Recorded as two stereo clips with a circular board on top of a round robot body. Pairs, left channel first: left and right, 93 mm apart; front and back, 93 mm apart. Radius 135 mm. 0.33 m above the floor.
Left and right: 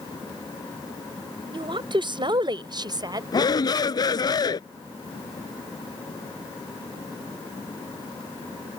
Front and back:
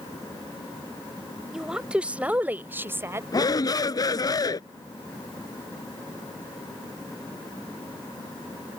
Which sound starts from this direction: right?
A woman speaking, at 1.5 s.